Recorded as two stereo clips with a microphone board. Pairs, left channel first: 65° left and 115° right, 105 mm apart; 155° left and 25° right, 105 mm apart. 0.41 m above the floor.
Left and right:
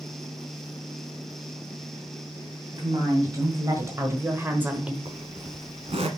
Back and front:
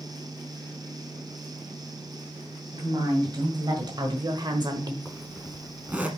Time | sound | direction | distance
2.7 | a woman speaking | 65° right | 2.5 m
5.0 | a zipper | 100° right | 1.2 m